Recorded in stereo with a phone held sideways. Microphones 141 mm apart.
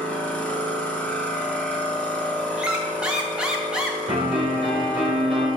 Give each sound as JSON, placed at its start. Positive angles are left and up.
{"t": 0.0, "sound": "a machine running", "side_deg": 10, "distance_m": 0.9}
{"t": 2.6, "sound": "a squeak", "side_deg": -5, "distance_m": 0.8}
{"t": 4.1, "sound": "a piano", "side_deg": -45, "distance_m": 2.5}